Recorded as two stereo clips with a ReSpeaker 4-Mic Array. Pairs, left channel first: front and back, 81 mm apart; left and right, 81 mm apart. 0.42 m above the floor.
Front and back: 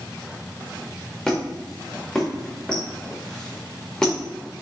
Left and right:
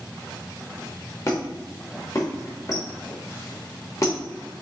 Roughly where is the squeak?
Left.